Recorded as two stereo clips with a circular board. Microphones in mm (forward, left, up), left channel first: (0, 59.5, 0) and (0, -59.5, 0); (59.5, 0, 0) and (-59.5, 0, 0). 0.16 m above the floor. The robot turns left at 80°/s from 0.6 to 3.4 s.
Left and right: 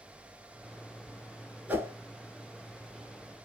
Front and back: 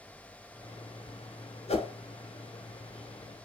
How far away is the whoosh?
About 0.7 m.